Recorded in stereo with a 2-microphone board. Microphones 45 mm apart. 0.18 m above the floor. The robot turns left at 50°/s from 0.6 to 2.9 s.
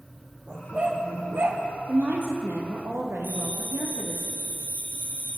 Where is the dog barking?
20° right, 3.5 m; by 1.6 s 70° right, 3.5 m.